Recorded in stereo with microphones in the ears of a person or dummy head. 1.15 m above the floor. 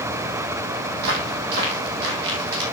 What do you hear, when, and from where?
1.0 s footsteps: 55° right (ahead or behind), 3 m; by 2.6 s 60° right (ahead or behind), 4 m